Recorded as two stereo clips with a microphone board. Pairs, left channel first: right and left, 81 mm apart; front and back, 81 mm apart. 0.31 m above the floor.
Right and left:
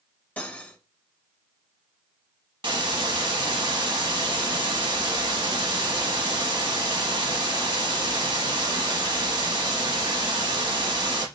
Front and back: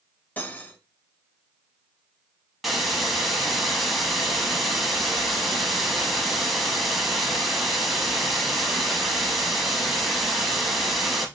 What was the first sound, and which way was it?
Cutlery clinking, 40° right.